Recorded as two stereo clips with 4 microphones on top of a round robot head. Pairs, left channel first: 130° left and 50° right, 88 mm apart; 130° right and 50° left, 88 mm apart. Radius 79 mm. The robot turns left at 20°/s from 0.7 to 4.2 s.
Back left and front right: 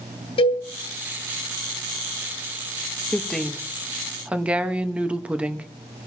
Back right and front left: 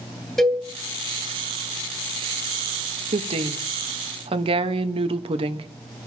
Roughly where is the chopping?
No chopping in this recording.